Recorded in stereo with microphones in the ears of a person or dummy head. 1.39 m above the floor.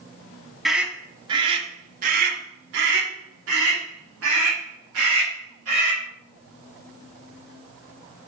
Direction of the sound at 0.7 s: Centre (ahead or behind).